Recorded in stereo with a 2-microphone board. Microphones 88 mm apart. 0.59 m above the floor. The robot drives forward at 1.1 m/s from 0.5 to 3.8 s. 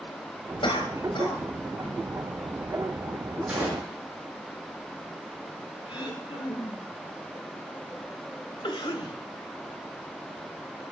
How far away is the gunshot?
About 8.5 m.